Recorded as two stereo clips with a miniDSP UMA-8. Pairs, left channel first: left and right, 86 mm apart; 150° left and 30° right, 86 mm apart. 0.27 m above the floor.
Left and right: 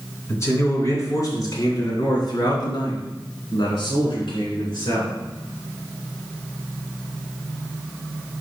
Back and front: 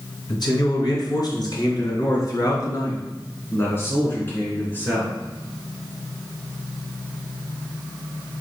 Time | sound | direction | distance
0.3 | a man speaking | 140° left | 2.5 m